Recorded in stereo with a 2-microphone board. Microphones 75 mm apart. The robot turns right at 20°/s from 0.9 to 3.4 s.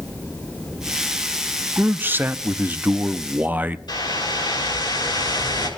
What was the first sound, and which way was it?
A man speaking, 25° right (ahead or behind).